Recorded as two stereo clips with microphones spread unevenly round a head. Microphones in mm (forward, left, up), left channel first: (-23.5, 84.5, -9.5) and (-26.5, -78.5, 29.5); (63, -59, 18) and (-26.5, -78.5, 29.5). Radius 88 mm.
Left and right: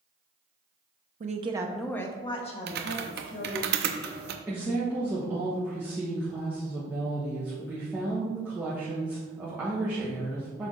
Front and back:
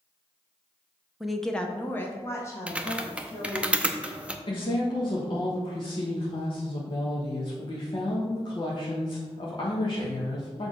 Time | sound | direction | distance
1.2 | a woman speaking | 70° right | 0.8 m
2.7 | typing on a keyboard | 95° right | 0.7 m
4.5 | a woman speaking | 5° right | 1.2 m